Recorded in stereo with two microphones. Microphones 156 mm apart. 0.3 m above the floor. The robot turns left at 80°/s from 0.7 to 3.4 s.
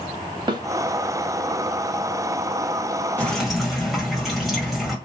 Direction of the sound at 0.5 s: 30° right (ahead or behind).